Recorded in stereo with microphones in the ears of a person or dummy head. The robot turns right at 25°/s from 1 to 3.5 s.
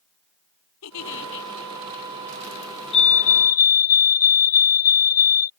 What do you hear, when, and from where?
0.8 s a giggle: 85° left; by 1.5 s 75° left (ahead or behind)
2.9 s a fire alarm: 25° left (ahead or behind); by 5.5 s 40° left (ahead or behind)